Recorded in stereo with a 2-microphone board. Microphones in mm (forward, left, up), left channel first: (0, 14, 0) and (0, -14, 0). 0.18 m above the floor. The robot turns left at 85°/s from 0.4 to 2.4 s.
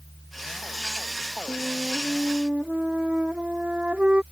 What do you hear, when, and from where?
1.5 s a flute: 30° left; by 4.2 s 50° right